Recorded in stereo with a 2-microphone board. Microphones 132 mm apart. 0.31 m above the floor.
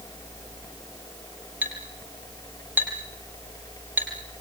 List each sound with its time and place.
1.6 s a clink: 15° right (ahead or behind), 6 m